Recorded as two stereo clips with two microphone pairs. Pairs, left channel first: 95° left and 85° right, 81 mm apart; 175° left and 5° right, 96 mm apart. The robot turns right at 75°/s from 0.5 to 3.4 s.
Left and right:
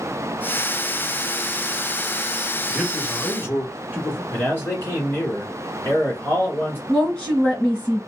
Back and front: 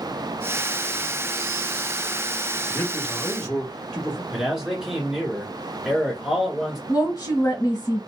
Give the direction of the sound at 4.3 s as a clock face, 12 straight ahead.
10 o'clock.